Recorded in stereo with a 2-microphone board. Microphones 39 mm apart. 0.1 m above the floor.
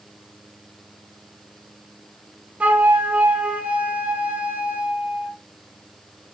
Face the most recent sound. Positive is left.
turn(degrees=-35)  # may be behind; listen again after turning